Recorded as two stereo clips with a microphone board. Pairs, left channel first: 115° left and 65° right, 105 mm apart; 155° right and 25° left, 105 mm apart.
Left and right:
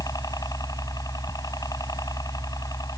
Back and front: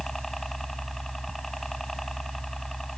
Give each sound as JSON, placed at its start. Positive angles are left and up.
{"t": 0.0, "sound": "a helicopter", "azimuth_deg": 115}